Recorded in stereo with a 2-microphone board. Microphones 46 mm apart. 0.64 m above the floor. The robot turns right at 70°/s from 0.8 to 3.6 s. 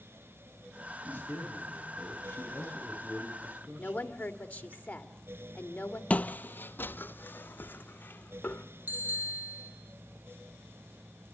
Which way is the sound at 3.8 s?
30° left (ahead or behind).